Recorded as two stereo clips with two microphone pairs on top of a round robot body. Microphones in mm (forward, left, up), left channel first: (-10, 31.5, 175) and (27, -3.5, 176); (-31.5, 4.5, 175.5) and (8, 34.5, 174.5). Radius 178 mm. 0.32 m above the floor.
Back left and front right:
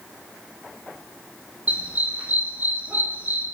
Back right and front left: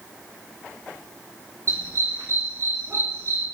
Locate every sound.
1.7 s a dog barking: 10° left, 9 m; by 3.5 s 5° left, 9.5 m